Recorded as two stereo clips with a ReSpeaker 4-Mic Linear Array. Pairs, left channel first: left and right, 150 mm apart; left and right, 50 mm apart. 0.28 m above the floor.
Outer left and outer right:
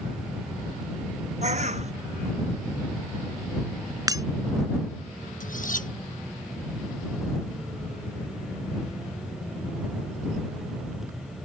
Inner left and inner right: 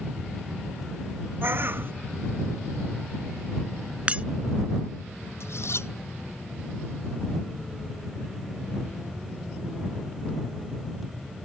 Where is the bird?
50° right (ahead or behind).